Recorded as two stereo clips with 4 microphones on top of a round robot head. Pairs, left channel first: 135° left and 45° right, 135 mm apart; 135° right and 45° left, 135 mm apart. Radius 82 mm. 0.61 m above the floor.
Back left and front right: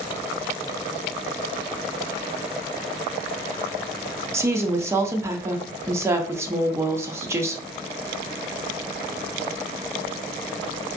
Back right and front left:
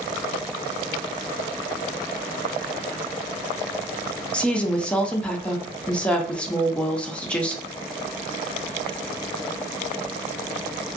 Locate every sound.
4.3 s a woman speaking: 70° right, 0.6 m